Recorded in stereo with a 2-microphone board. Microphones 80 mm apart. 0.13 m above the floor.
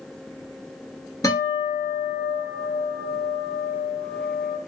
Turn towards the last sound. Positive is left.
turn(degrees=50)  # may be behind; listen again after turning